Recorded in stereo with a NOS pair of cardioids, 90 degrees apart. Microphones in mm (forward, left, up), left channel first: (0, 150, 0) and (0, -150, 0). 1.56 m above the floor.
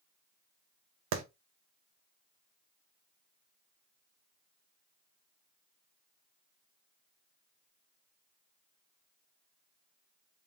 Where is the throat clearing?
I don't hear throat clearing.